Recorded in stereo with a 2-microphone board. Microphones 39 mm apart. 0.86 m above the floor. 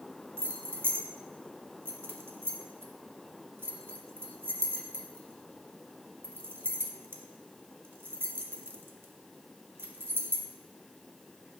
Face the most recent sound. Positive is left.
turn(degrees=-75)  # may be behind; listen again after turning